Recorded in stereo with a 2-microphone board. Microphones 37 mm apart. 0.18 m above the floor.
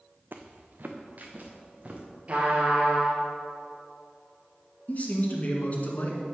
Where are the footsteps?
60° right (ahead or behind), 0.9 m; by 2.0 s 40° right (ahead or behind), 2.5 m.